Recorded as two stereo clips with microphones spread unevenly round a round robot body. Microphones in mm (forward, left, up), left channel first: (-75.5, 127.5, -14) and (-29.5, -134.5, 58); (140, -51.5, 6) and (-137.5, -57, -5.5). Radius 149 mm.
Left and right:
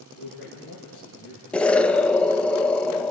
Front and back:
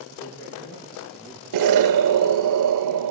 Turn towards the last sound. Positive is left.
turn(degrees=180)